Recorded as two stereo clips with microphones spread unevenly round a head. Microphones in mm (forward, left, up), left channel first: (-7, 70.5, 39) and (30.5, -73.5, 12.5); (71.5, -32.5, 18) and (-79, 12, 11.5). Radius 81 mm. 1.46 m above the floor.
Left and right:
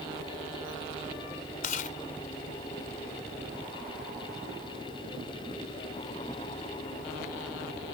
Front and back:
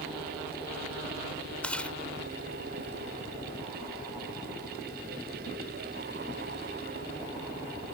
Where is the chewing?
65° left.